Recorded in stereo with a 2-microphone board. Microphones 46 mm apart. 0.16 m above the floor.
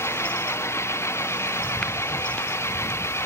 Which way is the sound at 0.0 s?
80° left.